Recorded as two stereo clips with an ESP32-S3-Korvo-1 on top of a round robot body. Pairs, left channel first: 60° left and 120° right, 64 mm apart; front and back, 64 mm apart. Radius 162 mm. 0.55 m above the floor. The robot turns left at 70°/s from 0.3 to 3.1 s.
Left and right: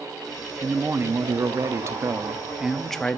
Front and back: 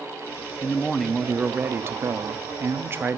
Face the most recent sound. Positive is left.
turn(degrees=130)